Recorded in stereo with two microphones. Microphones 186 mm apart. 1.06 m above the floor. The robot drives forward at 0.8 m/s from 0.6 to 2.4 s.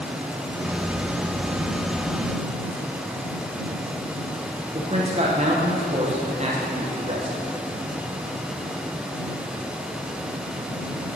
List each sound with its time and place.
4.8 s a man speaking: 35° right (ahead or behind), 0.7 m